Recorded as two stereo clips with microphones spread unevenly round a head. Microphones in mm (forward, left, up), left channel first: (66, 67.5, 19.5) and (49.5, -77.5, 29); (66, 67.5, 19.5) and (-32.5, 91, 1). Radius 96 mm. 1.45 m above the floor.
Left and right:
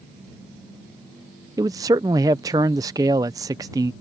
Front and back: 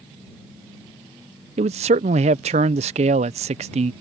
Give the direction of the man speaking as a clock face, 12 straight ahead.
6 o'clock.